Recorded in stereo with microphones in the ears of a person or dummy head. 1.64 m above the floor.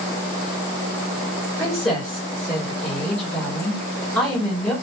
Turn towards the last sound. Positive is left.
turn(degrees=10)  # may be behind; listen again after turning